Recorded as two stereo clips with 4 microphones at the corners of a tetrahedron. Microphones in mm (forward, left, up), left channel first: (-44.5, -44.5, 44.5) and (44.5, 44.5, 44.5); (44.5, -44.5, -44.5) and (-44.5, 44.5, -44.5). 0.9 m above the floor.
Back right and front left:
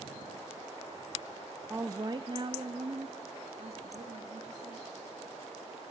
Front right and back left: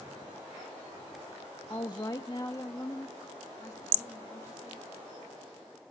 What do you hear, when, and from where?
1.7 s a woman speaking: 20° right, 0.6 m; by 4.9 s 20° left, 2 m